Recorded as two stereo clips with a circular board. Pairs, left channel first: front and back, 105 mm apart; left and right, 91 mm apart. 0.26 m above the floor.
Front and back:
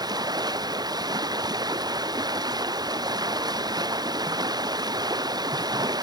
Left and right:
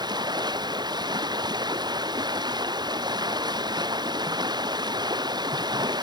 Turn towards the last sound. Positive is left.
turn(degrees=-130)